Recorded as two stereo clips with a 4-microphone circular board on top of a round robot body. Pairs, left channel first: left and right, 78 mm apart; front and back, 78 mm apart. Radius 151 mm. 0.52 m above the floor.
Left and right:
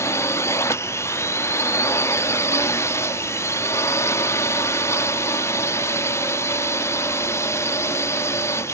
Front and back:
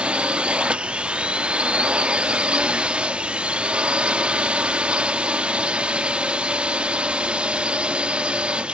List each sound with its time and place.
0.0 s a drone: 110° left